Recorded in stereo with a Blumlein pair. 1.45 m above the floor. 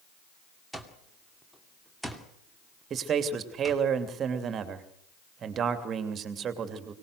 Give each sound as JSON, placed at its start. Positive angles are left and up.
{"t": 0.7, "sound": "an alarm clock", "azimuth_deg": 0, "distance_m": 2.5}
{"t": 2.9, "sound": "a man speaking", "azimuth_deg": -25, "distance_m": 3.0}